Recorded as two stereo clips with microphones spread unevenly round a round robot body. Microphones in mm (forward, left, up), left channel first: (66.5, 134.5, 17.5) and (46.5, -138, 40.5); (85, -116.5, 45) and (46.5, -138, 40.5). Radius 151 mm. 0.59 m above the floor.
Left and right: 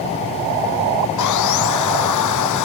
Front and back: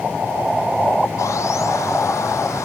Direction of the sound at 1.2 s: 65° left.